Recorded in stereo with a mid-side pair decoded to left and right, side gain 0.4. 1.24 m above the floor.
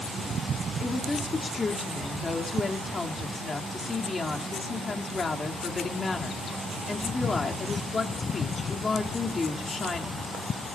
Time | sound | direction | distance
0.8 | a woman speaking | 40° left | 3 m